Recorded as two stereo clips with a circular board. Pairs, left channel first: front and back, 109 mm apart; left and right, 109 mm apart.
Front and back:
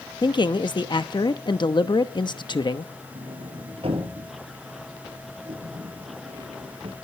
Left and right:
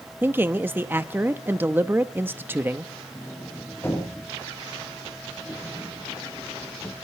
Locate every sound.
0.2 s a man speaking: 25° right, 0.8 m
3.1 s a sliding door: 155° left, 3 m